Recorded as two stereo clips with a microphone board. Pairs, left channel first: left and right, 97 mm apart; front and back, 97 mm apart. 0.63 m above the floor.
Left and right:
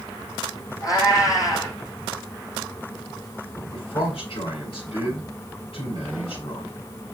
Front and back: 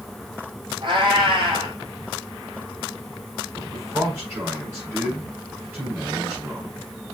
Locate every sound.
0.8 s a cat meowing: 140° left, 3.5 m
3.5 s a man speaking: 115° left, 5 m